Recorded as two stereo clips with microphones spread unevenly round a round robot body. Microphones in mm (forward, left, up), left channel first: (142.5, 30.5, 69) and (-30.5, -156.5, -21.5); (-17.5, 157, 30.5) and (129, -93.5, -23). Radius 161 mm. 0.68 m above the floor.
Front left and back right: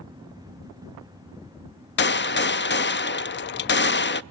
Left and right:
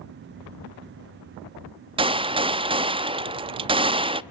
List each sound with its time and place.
2.0 s a gunshot: 10° right, 0.7 m